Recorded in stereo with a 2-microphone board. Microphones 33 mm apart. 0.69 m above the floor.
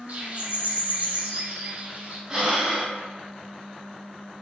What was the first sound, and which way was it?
A bird, 40° right (ahead or behind).